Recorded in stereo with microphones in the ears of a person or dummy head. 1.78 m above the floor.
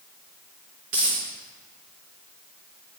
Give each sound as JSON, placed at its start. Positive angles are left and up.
{"t": 0.9, "sound": "a dropped coin", "side_deg": -20, "distance_m": 1.1}